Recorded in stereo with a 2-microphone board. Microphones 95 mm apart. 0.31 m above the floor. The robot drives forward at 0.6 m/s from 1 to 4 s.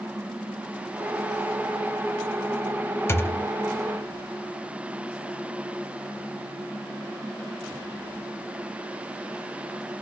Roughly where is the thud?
Left.